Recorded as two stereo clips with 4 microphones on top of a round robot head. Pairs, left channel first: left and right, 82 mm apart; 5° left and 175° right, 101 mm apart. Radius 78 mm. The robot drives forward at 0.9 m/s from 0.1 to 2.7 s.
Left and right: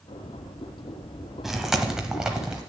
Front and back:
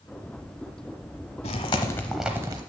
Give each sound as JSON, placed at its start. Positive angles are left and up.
{"t": 1.4, "sound": "chewing", "azimuth_deg": -5, "distance_m": 0.9}